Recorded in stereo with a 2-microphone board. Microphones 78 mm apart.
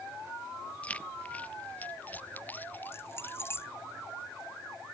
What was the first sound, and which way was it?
Keys jangling, 15° left (ahead or behind).